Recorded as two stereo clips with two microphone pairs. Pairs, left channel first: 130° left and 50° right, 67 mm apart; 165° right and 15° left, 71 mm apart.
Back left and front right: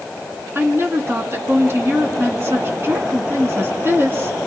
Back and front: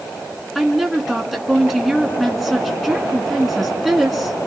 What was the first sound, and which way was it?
A woman speaking, 75° right.